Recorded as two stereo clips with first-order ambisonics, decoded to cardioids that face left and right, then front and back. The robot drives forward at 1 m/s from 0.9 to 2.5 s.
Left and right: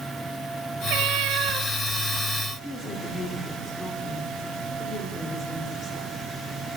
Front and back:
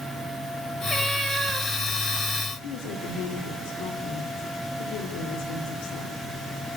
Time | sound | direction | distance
0.9 | a cat meowing | 85° right | 1.4 m
2.6 | a woman speaking | 15° left | 4 m